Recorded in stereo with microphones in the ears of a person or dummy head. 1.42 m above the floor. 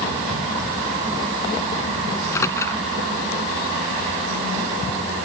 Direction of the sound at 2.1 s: 10° left (ahead or behind).